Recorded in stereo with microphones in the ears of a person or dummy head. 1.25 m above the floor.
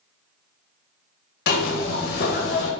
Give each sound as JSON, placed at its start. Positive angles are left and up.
{"t": 1.5, "sound": "a zipper", "side_deg": 70, "distance_m": 0.9}